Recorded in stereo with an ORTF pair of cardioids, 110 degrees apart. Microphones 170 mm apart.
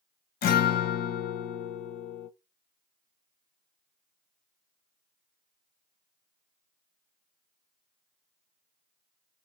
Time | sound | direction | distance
0.4 | a guitar | 60° left | 0.7 m